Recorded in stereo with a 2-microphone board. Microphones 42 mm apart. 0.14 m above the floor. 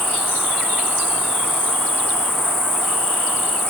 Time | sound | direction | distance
0.0 | an insect | 75° left (ahead or behind) | 2.5 m